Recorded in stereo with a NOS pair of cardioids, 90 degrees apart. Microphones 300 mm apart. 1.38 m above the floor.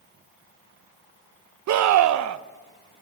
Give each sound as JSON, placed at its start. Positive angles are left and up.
{"t": 1.7, "sound": "a scream", "azimuth_deg": -70, "distance_m": 1.0}